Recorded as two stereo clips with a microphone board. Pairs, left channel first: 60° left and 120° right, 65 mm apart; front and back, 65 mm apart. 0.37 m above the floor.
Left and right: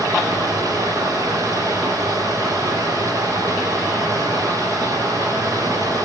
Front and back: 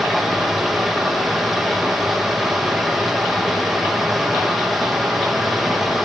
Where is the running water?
90° right, 5 m.